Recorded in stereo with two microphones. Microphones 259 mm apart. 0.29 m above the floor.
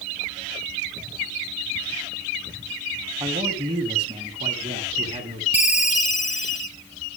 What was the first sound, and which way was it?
A man speaking, 15° right (ahead or behind).